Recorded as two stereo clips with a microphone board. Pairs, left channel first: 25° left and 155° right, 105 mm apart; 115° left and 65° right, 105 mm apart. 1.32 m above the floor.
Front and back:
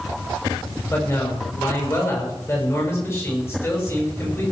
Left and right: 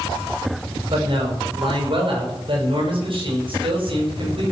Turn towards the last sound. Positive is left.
turn(degrees=-40)